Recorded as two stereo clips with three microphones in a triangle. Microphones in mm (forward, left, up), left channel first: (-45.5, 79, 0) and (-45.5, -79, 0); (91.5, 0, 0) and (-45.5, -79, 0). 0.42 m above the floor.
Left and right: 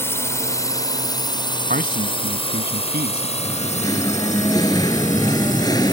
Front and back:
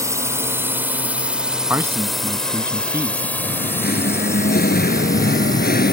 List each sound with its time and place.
0.0 s a drone: 155° left; by 5.9 s 90° left
1.7 s a man speaking: 75° right
3.4 s singing: 25° left